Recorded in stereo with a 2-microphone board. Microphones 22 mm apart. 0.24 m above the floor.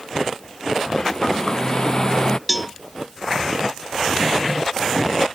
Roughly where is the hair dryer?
Left.